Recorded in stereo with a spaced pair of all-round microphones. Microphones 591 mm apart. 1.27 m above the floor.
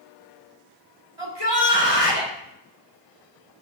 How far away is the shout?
About 3 m.